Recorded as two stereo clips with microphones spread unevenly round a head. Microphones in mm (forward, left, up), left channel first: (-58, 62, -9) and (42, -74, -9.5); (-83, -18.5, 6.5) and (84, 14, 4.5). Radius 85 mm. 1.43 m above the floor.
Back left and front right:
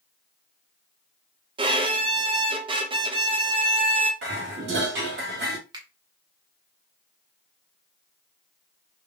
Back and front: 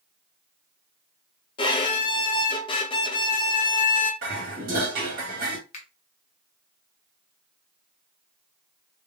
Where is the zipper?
No zipper in this recording.